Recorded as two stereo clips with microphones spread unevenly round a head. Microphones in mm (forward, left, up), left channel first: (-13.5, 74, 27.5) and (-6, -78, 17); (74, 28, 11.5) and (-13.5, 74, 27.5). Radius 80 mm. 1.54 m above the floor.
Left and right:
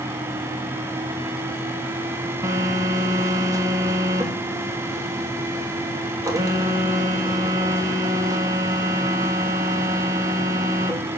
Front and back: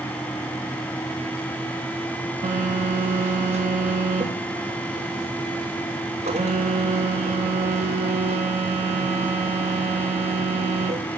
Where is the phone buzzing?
155° right, 2.5 m.